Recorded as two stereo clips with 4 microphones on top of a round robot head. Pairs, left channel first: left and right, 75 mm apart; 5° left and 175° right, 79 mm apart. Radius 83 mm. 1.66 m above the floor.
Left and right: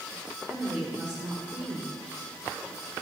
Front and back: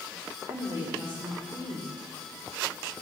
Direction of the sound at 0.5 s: 150° right.